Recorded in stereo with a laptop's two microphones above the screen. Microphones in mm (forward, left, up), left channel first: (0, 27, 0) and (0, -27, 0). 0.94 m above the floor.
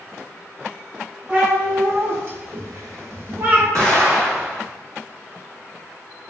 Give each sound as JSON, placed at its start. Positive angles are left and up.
{"t": 1.3, "sound": "a cat meowing", "side_deg": -30, "distance_m": 1.8}
{"t": 3.8, "sound": "an explosion", "side_deg": -70, "distance_m": 1.5}